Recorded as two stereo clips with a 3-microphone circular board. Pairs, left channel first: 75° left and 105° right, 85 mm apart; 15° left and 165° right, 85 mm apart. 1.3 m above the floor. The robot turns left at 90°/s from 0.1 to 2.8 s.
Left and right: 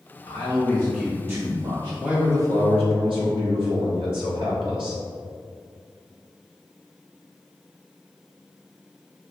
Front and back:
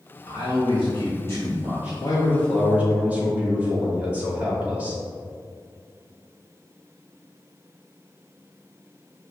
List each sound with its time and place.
0.3 s a man speaking: 50° left, 2.5 m; by 1.9 s 95° right, 2.5 m
2.0 s a man speaking: 20° right, 2.5 m; by 5.0 s 95° right, 2.5 m